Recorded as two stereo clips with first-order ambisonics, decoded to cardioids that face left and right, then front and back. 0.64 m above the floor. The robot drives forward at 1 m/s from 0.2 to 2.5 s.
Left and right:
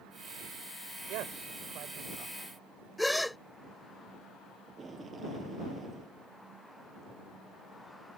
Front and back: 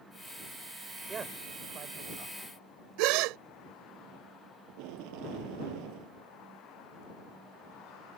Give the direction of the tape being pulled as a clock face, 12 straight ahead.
5 o'clock.